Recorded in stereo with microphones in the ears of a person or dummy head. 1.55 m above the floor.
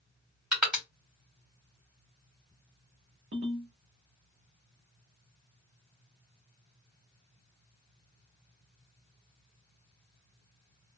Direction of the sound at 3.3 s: 45° right (ahead or behind).